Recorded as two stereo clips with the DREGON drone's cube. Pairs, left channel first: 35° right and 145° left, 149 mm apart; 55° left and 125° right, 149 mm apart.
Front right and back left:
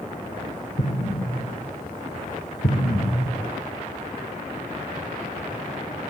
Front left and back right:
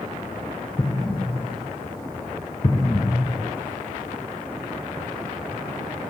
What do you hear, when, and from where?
0.8 s an explosion: 5° right, 1.7 m